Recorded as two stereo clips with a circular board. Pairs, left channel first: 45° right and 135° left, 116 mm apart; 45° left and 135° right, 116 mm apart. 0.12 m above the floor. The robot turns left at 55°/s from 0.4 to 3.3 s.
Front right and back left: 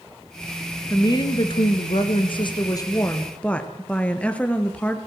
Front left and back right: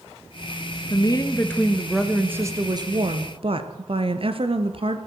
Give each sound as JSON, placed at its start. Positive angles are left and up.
{"t": 0.9, "sound": "a woman speaking", "azimuth_deg": 10, "distance_m": 2.5}